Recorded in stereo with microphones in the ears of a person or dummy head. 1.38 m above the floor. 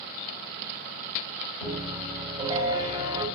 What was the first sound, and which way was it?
A piano, 25° right (ahead or behind).